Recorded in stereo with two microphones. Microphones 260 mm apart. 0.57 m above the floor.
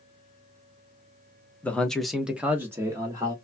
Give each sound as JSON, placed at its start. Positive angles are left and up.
{"t": 1.6, "sound": "a man speaking", "side_deg": 5, "distance_m": 0.7}